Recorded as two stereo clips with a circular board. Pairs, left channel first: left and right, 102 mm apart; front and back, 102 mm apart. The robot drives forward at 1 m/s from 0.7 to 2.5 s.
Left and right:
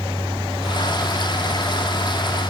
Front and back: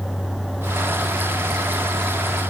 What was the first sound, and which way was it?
Only background noise.